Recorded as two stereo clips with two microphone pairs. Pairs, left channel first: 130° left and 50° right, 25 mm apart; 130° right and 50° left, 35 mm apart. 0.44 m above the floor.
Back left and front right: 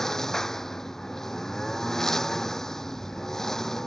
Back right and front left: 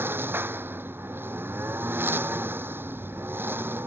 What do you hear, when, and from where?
0.0 s a lawn mower: 60° left